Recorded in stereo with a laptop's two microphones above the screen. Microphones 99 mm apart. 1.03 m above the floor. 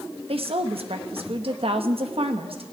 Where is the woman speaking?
70° right (ahead or behind), 0.9 m.